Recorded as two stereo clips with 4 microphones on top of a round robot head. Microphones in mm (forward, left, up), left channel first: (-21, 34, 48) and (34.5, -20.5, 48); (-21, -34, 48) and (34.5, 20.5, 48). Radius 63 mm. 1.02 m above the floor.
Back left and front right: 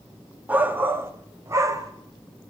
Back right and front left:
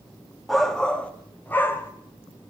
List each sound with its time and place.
0.5 s a shout: 50° right, 0.8 m; by 1.9 s 80° right, 1.2 m